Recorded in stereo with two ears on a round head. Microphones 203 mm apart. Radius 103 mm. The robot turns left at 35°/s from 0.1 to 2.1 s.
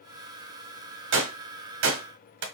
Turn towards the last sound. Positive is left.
turn(degrees=-55)  # may be behind; listen again after turning